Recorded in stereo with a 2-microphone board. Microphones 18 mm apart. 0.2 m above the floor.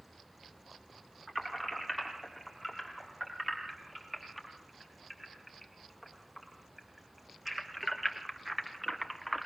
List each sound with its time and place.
1.3 s keys jangling: 15° right (ahead or behind), 6.5 m; by 9.5 s 5° right (ahead or behind), 2 m